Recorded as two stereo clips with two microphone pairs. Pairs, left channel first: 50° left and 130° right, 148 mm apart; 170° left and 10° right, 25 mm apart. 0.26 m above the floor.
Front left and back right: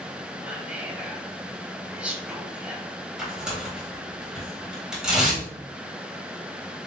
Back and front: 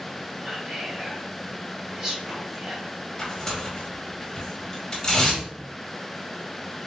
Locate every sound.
0.4 s whispering: 50° right, 1.2 m
3.2 s tearing paper: 155° left, 1.5 m